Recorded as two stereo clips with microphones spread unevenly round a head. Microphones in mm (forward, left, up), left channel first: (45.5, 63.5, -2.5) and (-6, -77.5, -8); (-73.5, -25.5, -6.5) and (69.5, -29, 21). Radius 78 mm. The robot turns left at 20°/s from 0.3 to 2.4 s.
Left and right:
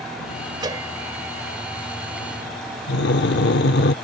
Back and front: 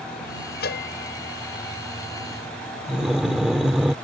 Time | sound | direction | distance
0.6 | a bell | 175° right | ?
2.9 | breathing | 80° left | ?